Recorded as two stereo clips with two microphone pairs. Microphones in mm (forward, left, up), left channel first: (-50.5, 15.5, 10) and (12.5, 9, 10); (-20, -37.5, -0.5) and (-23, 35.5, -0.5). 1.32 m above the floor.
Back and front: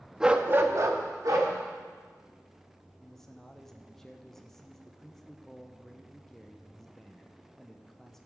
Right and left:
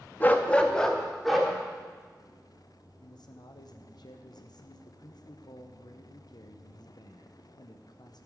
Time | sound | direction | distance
0.2 | a dog barking | 80° right | 0.7 m
3.0 | a man speaking | 105° right | 0.8 m